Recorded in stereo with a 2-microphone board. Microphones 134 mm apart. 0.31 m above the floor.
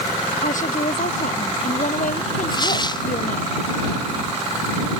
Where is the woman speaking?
70° left (ahead or behind); by 3.5 s 75° left (ahead or behind).